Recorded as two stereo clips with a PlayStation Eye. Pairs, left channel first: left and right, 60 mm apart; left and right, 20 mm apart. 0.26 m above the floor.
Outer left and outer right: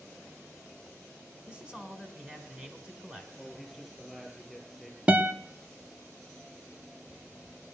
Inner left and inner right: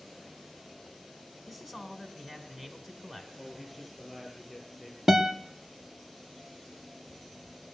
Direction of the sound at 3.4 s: 5° right (ahead or behind).